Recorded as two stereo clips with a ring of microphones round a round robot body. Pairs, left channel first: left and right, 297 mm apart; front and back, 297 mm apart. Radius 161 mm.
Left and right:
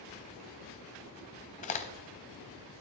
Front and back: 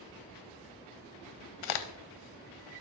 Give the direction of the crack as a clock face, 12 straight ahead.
11 o'clock.